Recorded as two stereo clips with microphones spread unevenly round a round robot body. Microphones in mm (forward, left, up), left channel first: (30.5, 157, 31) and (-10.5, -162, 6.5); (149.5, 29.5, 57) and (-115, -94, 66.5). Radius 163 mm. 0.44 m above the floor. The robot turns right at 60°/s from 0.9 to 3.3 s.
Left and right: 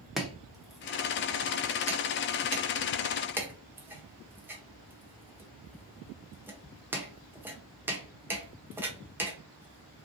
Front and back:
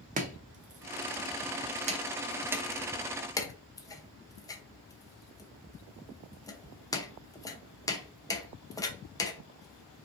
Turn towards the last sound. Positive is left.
turn(degrees=-30)